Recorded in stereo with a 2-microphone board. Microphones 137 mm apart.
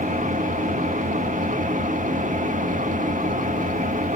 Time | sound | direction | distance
0.0 | an engine running | 60° right (ahead or behind) | 1.1 m